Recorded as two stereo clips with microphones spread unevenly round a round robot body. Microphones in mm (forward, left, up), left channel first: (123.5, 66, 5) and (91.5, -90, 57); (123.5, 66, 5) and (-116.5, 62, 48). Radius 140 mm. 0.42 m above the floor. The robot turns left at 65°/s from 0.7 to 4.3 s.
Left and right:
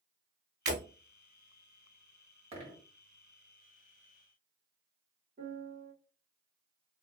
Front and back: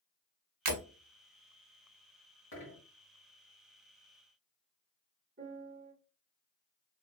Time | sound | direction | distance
0.7 | breaking glass | 165° right | 1.3 m
2.5 | a dropped coin | 45° right | 1.9 m
5.4 | a piano | 130° right | 1.2 m